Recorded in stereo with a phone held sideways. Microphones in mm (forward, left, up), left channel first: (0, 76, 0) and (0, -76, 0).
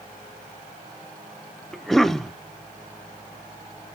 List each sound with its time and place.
1.7 s a cough: centre (ahead or behind), 0.7 m